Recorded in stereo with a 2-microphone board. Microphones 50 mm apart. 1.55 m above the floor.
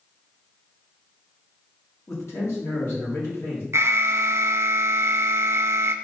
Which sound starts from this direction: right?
An alarm, at 3.7 s.